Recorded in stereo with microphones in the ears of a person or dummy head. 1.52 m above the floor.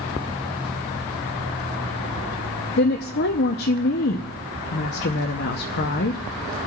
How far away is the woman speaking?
About 0.7 m.